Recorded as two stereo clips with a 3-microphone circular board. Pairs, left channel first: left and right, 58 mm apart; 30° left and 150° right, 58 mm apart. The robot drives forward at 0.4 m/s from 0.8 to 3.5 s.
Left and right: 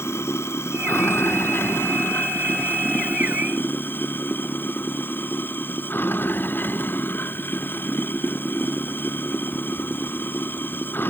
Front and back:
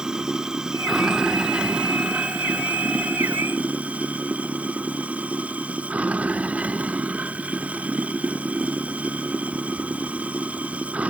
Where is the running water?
130° left; by 11.1 s 145° left.